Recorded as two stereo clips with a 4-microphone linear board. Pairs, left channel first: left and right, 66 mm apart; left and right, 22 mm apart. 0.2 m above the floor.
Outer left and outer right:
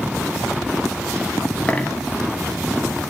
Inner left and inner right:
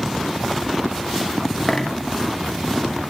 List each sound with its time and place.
1.7 s a dropped coin: 20° left (ahead or behind), 0.6 m